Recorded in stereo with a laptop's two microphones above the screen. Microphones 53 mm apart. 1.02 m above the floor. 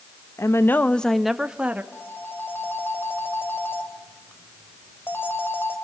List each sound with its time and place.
0.4 s a woman speaking: 60° left (ahead or behind), 1.3 m; by 1.8 s 25° right (ahead or behind), 1.8 m
1.9 s a phone ringing: 40° left (ahead or behind), 3 m